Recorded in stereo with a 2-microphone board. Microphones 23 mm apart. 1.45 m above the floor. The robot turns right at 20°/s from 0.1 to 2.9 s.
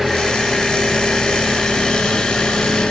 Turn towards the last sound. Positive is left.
turn(degrees=55)